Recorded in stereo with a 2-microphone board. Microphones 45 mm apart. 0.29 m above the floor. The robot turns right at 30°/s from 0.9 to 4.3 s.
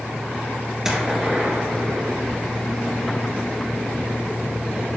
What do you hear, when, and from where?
0.8 s a gunshot: 165° right, 2 m; by 2.2 s 125° right, 2 m